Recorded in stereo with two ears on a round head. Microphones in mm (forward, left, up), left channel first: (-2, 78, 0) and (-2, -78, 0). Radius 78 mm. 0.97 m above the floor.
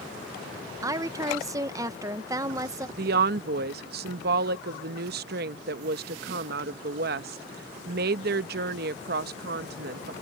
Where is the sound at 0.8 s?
20° right (ahead or behind).